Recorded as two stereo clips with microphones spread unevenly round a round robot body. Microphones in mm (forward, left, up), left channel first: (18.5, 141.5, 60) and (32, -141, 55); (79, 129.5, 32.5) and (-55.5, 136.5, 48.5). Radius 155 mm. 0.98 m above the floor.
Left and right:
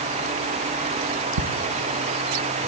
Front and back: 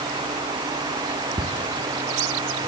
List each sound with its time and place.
1.4 s ticking: 110° right, 1.6 m